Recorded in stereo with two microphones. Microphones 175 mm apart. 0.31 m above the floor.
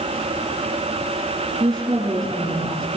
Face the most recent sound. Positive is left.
turn(degrees=-20)  # may be behind; listen again after turning